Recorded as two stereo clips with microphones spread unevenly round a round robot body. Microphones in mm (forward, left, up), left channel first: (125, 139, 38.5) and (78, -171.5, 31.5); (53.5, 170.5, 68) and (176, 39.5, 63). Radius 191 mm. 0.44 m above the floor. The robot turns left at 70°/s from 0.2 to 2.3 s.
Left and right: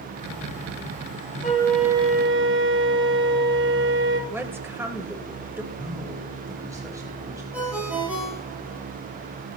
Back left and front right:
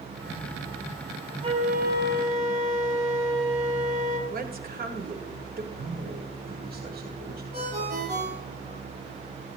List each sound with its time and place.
1.4 s a flute: 15° left, 2 m; by 4.2 s 45° right, 2 m
4.3 s a woman speaking: 15° right, 1.6 m
5.7 s a man speaking: 20° right, 3 m
7.5 s a ringtone: 15° right, 8.5 m